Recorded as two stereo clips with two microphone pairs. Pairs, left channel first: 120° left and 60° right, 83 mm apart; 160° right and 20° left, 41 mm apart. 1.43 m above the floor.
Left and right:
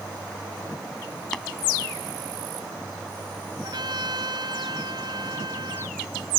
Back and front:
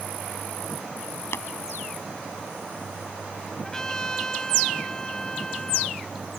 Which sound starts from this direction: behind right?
Tapping, at 1.3 s.